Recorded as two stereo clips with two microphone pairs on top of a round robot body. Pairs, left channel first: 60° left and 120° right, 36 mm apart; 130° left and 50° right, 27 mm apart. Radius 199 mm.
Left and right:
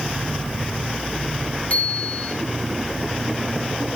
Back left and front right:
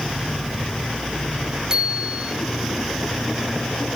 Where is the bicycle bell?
5° left, 6.5 m.